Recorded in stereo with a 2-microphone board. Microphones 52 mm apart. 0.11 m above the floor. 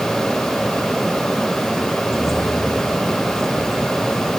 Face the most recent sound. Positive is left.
turn(degrees=70)  # may be behind; listen again after turning